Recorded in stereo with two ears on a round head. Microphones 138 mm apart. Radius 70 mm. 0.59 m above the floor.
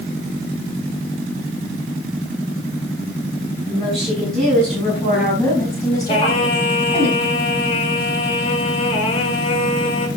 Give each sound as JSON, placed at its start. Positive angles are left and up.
{"t": 3.7, "sound": "a woman speaking", "side_deg": 0, "distance_m": 7.0}
{"t": 6.1, "sound": "singing", "side_deg": 40, "distance_m": 1.7}